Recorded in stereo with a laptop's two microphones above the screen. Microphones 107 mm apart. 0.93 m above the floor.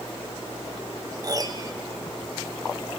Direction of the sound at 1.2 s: 35° right (ahead or behind).